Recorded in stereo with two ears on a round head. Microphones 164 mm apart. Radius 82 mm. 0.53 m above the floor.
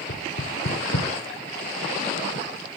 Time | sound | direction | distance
0.1 | knocking | 55° left (ahead or behind) | 0.7 m